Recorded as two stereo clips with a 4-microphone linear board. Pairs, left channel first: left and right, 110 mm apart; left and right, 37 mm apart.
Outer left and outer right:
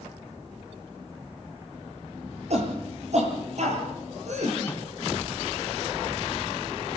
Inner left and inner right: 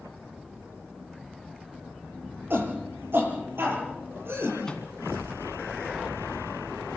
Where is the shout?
65° right (ahead or behind), 7 m; by 4.5 s 75° right (ahead or behind), 7.5 m.